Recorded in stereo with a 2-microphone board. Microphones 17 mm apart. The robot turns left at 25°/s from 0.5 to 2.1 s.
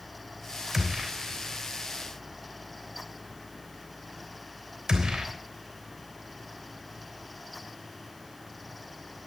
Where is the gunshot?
10° right (ahead or behind), 3 m; by 5.3 s 45° right (ahead or behind), 3 m.